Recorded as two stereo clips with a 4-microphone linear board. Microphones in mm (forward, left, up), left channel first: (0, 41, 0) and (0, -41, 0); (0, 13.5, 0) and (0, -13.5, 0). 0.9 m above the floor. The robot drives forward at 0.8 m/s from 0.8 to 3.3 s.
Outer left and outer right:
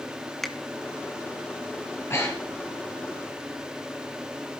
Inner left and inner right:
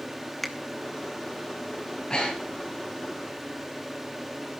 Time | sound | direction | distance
0.4 | a finger snap | 5° left (ahead or behind) | 1.0 m
2.1 | breathing | 35° left (ahead or behind) | 4.5 m